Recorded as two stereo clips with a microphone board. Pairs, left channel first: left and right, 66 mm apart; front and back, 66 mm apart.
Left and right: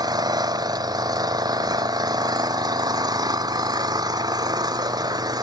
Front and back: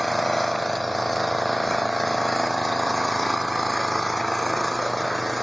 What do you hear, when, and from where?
0.0 s an engine running: 90° right